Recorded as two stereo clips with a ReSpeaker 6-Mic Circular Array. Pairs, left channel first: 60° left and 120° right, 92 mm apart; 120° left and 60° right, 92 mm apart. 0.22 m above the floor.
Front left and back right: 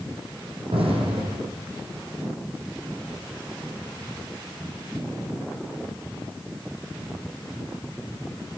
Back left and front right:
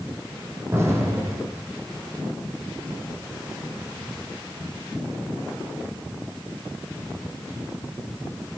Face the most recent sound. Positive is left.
turn(degrees=-120)